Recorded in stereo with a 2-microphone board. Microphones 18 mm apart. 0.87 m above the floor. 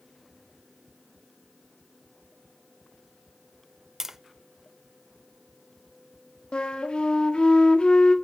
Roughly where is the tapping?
Right.